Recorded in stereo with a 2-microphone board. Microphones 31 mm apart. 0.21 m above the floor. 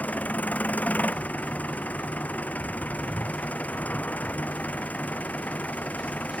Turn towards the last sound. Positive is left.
turn(degrees=60)  # may be behind; listen again after turning